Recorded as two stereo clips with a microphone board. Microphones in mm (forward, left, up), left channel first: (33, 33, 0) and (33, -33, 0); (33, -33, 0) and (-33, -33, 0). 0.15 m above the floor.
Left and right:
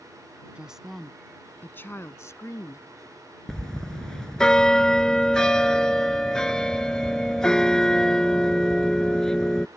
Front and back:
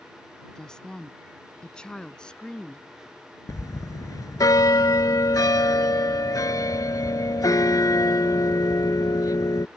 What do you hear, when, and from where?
0.6 s a woman speaking: 55° right; by 2.9 s 75° left
3.5 s a bell: 10° left